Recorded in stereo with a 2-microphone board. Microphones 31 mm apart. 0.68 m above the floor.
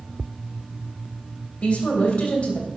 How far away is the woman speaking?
About 3 m.